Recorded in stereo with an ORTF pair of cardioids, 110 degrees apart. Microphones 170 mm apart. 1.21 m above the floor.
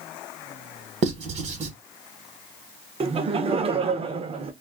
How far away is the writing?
About 1.1 m.